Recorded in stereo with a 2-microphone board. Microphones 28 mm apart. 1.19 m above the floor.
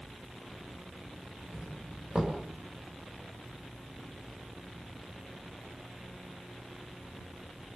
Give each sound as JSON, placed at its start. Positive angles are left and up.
{"t": 1.5, "sound": "a doorbell", "side_deg": -35, "distance_m": 8.0}